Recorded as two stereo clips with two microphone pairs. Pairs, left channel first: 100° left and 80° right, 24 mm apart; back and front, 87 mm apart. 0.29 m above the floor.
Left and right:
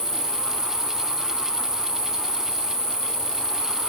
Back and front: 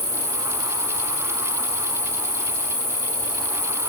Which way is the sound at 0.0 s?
20° right.